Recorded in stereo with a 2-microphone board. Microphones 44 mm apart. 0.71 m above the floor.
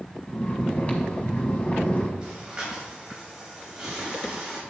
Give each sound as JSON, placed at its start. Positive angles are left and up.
{"t": 0.3, "sound": "snoring", "side_deg": 35, "distance_m": 1.2}
{"t": 2.2, "sound": "breathing", "side_deg": -15, "distance_m": 2.5}